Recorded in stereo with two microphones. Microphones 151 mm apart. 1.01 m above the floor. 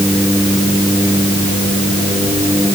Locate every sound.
Only background noise.